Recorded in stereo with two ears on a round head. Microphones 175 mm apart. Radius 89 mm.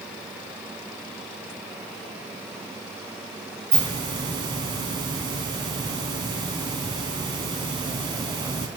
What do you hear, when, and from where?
3.7 s a hiss: 25° right (ahead or behind), 1.4 m